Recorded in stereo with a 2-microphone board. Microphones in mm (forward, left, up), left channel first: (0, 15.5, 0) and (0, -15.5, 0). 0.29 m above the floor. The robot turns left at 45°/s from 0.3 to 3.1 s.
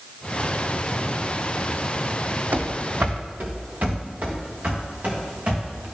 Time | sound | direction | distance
2.5 | running footsteps | 65° right (ahead or behind) | 0.9 m